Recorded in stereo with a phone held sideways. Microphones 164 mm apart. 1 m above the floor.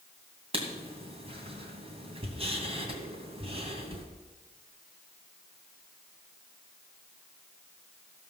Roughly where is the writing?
Right.